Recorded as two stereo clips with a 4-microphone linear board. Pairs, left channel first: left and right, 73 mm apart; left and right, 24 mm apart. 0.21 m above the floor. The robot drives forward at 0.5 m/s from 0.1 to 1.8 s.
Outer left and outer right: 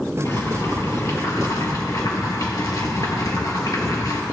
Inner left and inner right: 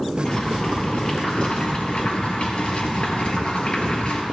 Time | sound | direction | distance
0.2 | boiling | 40° left (ahead or behind) | 3 m